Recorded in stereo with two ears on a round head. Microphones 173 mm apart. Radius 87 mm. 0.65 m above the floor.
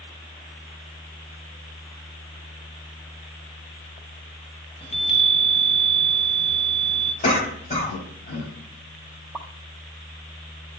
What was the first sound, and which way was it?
A chime, 30° left (ahead or behind).